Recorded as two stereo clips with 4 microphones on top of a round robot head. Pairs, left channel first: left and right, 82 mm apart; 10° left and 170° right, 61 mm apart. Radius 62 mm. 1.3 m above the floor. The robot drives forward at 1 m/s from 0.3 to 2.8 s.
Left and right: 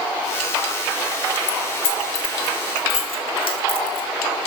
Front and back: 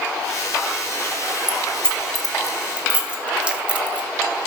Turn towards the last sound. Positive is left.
turn(degrees=120)